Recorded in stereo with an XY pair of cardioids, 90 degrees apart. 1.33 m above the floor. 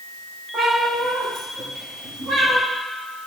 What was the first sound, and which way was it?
A cat meowing, 60° right.